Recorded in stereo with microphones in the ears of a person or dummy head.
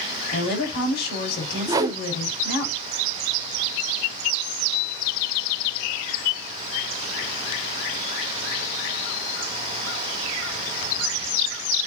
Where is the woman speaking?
60° left (ahead or behind), 5 m.